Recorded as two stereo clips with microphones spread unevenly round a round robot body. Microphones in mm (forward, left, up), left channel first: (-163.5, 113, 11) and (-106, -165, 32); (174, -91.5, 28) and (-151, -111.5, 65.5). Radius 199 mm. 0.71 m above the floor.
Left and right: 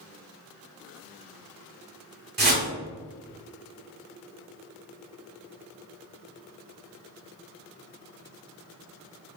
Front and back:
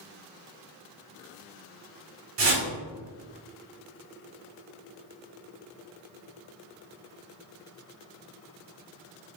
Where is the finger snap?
No finger snap in this recording.